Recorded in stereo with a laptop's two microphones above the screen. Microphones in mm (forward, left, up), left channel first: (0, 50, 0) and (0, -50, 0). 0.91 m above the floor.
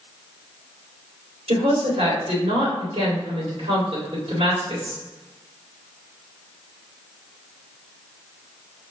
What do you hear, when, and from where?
1.5 s a woman speaking: 75° right (ahead or behind), 2 m